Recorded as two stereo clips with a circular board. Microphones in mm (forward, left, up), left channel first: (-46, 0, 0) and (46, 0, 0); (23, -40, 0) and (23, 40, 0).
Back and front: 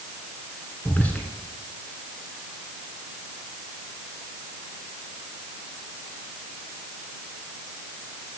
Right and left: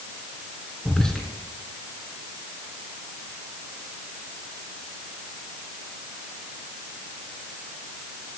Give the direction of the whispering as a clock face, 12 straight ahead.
5 o'clock.